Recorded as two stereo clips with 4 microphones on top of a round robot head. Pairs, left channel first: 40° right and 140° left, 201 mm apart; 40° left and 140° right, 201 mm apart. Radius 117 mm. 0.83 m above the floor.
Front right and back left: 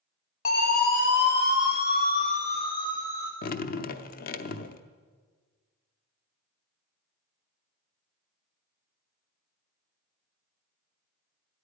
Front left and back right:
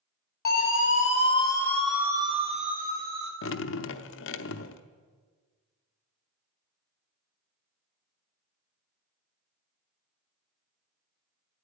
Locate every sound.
0.5 s a siren: straight ahead, 2.5 m; by 3.3 s 115° right, 2.5 m
3.4 s dripping: 10° left, 0.6 m